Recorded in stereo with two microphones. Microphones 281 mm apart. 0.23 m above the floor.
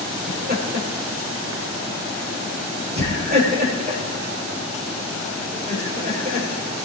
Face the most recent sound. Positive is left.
turn(degrees=-35)  # may be behind; listen again after turning